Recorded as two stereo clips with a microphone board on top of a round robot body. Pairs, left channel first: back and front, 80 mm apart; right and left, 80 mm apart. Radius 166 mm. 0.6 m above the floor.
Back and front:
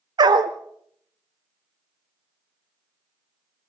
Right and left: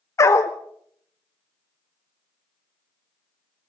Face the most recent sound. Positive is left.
turn(degrees=-35)